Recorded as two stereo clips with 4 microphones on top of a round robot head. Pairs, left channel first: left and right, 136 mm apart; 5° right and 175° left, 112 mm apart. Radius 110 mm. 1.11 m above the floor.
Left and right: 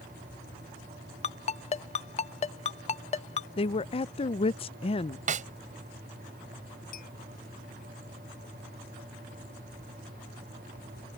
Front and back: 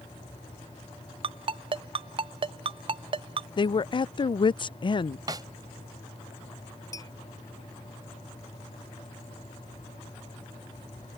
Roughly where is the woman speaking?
Ahead left.